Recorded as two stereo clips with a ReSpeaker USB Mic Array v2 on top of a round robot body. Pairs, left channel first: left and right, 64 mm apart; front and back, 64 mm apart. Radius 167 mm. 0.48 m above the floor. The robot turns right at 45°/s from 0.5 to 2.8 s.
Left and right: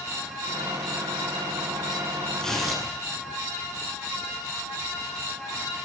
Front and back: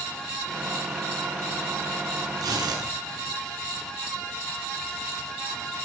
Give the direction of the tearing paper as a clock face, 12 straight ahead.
6 o'clock.